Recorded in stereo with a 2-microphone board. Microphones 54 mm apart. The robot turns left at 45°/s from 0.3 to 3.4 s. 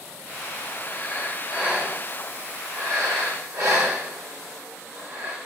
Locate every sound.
0.9 s breathing: 15° left (ahead or behind), 1.6 m; by 5.4 s 65° right (ahead or behind), 1.6 m